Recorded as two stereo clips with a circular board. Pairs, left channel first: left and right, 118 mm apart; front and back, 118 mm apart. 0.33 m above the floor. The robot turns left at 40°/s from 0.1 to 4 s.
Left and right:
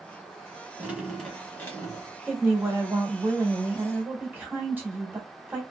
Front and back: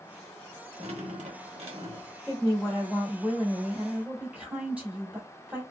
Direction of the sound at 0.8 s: 165° right.